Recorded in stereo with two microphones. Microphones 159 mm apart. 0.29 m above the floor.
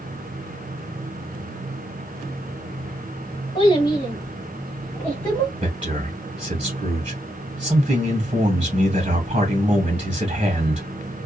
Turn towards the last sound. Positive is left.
turn(degrees=-35)  # may be behind; listen again after turning